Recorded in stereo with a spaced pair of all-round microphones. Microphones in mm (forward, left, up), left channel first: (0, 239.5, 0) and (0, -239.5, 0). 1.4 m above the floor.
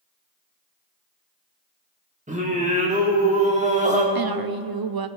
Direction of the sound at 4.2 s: 50° right (ahead or behind).